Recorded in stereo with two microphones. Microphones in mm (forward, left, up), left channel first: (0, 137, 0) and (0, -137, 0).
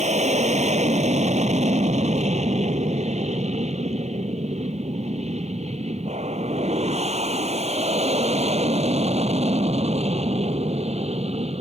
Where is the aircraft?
25° right (ahead or behind); by 11.6 s 20° right (ahead or behind).